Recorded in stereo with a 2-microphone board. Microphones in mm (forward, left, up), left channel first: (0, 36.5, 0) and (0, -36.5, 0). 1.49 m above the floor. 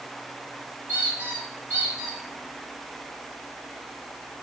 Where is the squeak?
20° right (ahead or behind), 2 m.